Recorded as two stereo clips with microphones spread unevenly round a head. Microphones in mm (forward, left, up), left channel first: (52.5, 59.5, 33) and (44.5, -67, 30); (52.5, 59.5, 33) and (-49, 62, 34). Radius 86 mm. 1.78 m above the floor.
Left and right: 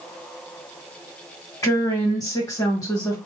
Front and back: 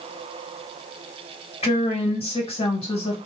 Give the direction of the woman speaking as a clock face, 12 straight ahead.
11 o'clock.